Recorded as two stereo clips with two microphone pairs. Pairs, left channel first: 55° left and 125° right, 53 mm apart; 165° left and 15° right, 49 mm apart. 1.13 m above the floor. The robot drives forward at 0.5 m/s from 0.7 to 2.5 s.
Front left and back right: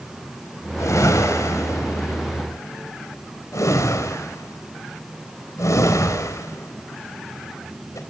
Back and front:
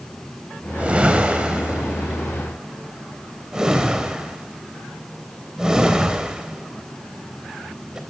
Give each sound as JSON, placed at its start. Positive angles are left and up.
{"t": 0.8, "sound": "a whoosh", "azimuth_deg": 50, "distance_m": 4.0}